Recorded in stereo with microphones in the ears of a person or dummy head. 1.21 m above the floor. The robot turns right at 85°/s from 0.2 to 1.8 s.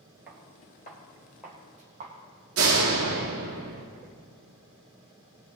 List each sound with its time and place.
0.3 s footsteps: 10° right (ahead or behind), 1.2 m; by 2.1 s 35° right (ahead or behind), 3 m
2.6 s a door slam: 75° right (ahead or behind), 1.5 m